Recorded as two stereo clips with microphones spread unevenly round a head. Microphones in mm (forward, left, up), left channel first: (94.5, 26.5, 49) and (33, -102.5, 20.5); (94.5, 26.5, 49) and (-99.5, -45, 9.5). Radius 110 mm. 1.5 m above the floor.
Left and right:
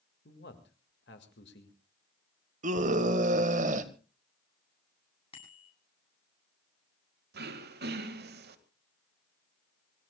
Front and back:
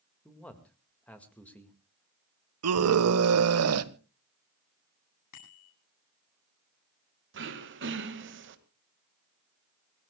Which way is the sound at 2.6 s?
165° right.